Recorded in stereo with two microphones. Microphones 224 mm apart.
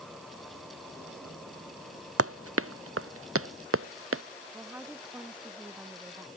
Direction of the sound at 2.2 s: 85° right.